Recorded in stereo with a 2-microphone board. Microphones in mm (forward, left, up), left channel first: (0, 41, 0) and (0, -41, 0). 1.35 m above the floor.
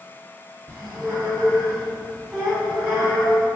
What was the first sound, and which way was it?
A squeak, 5° right (ahead or behind).